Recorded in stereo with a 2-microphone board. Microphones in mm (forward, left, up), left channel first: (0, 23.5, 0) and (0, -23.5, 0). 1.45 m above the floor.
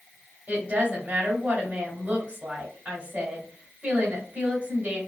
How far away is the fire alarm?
I don't hear a fire alarm.